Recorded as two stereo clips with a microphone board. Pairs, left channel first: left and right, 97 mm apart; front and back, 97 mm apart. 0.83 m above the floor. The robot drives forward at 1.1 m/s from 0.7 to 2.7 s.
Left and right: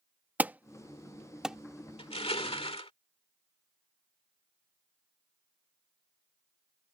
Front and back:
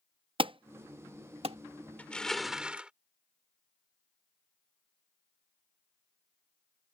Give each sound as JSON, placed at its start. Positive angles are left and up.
{"t": 0.4, "sound": "an alarm", "azimuth_deg": -160}
{"t": 2.0, "sound": "crushing", "azimuth_deg": 75}